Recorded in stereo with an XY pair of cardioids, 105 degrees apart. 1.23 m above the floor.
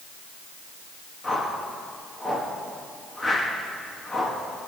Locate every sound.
1.2 s a whoosh: 25° left, 2 m